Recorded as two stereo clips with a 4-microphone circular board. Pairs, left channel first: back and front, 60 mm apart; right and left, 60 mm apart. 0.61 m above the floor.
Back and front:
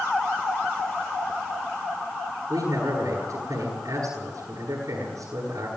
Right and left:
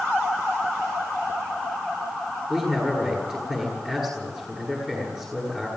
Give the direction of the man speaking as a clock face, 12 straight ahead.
12 o'clock.